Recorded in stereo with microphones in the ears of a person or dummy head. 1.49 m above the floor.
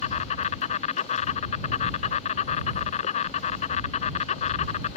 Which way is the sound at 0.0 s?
45° left (ahead or behind).